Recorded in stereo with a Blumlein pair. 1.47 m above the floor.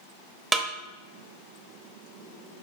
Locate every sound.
0.5 s a snare drum: 15° right, 0.7 m